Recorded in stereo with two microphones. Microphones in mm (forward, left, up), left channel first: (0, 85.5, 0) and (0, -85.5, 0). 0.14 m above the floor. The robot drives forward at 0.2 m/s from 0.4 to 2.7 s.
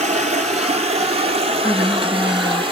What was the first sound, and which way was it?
Running water, 40° right (ahead or behind).